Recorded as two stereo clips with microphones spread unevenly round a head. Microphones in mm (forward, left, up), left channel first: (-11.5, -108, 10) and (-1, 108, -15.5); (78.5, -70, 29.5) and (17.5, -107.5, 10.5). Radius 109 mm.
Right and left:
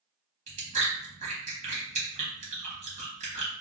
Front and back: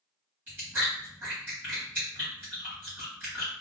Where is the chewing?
145° left, 1.2 m.